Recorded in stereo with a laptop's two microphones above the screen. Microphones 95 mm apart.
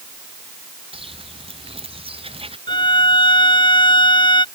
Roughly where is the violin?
Left.